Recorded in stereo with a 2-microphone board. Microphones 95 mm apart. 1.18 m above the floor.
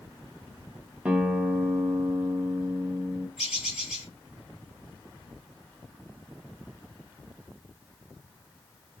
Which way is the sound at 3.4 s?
5° right (ahead or behind).